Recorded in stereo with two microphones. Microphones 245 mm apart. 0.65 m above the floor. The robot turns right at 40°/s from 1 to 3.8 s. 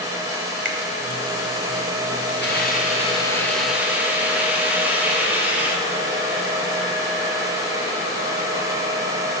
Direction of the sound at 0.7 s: 50° right (ahead or behind).